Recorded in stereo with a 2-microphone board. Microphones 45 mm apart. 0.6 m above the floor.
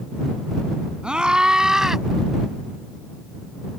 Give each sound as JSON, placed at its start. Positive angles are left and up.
{"t": 1.0, "sound": "a scream", "side_deg": -20}